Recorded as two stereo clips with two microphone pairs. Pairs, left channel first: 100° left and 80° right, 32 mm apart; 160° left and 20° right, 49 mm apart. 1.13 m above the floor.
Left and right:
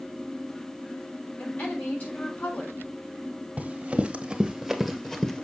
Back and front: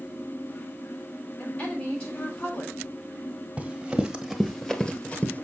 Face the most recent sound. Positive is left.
turn(degrees=155)